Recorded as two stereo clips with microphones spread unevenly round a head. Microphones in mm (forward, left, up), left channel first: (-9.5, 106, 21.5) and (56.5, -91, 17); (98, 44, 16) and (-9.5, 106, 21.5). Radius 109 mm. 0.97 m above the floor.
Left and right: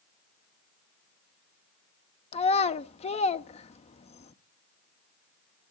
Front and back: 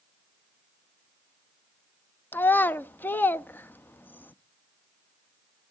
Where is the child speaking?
45° left, 0.6 m.